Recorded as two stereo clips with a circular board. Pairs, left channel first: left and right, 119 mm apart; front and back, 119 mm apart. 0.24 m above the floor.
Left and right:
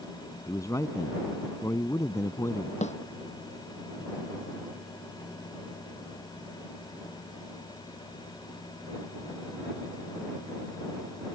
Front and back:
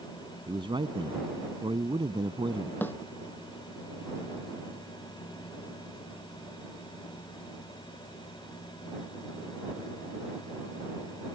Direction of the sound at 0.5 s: 145° left.